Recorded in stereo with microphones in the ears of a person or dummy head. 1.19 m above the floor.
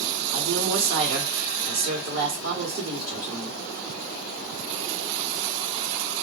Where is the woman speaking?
55° right (ahead or behind), 1.1 m.